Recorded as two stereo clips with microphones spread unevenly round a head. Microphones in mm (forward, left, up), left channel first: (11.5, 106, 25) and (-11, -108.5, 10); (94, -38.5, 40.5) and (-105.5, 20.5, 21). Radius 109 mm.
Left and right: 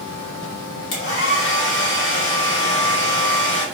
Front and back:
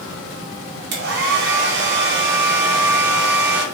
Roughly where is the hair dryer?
Behind left.